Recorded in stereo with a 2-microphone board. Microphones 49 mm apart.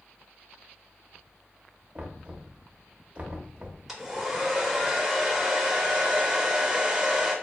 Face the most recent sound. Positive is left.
turn(degrees=-5)  # may be behind; listen again after turning